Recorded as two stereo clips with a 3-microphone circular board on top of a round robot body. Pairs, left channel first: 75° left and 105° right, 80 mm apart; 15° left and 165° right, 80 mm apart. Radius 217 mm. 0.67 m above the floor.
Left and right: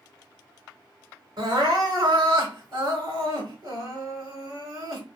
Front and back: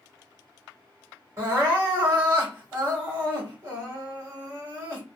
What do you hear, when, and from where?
1.4 s crying: 115° right, 1.8 m